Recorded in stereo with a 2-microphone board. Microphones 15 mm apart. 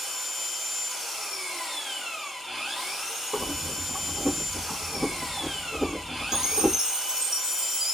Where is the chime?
40° right (ahead or behind), 1.2 m.